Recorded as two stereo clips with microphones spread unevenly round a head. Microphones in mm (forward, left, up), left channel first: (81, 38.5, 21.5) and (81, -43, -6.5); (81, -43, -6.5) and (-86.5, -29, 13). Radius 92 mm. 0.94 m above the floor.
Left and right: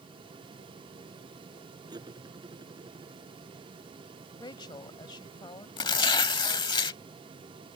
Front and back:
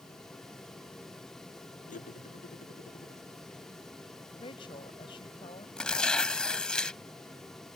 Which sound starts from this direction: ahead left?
A woman speaking, at 4.4 s.